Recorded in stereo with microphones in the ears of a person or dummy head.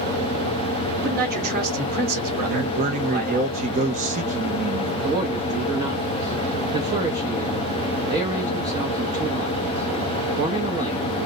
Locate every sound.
1.0 s a man speaking: 50° right (ahead or behind), 1.1 m
2.4 s a man speaking: 35° right (ahead or behind), 0.5 m
5.0 s a man speaking: 35° right (ahead or behind), 0.7 m